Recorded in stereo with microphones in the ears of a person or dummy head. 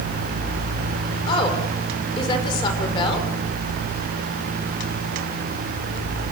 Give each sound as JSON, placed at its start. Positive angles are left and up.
{"t": 1.3, "sound": "a woman speaking", "side_deg": 30, "distance_m": 5.5}